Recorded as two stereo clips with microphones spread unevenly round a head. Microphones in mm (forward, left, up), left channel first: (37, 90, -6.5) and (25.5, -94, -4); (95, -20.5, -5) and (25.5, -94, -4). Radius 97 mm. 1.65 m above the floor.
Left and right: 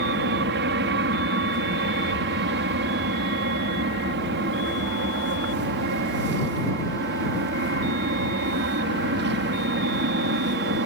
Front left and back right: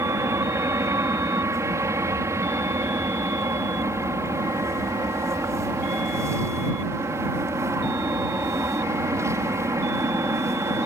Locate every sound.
0.0 s an aircraft: 75° right